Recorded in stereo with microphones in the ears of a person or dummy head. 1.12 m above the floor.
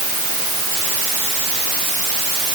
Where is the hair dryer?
No hair dryer in this recording.